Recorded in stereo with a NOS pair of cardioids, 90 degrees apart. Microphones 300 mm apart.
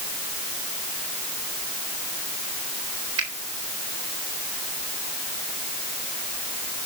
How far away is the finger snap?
About 3.5 m.